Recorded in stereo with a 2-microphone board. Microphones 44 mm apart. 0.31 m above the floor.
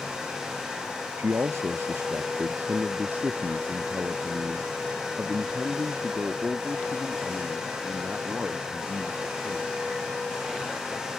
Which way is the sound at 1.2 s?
75° right (ahead or behind).